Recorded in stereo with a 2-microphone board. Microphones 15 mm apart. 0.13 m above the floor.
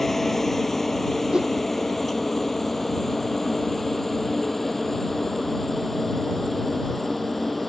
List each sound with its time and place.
0.0 s a helicopter: 15° left (ahead or behind)
1.3 s a whoosh: 70° right (ahead or behind)